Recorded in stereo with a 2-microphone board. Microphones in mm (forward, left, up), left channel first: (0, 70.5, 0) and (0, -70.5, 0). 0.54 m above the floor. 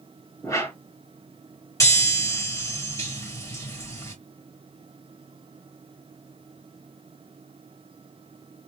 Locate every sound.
0.4 s a whoosh: 25° left (ahead or behind), 3.5 m
1.8 s a chime: 20° left (ahead or behind), 3.5 m